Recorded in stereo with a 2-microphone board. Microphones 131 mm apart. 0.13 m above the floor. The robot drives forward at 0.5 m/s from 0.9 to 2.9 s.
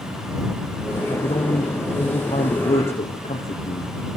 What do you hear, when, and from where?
1.0 s a man speaking: 60° left (ahead or behind), 3.5 m; by 3.9 s 70° left (ahead or behind), 3.5 m